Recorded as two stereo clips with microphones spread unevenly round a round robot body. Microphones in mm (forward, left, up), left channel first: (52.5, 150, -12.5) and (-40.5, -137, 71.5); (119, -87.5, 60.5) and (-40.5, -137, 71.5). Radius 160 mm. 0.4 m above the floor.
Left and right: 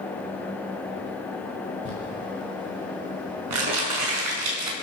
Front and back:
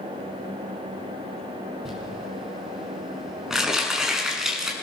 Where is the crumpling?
75° right, 6 m.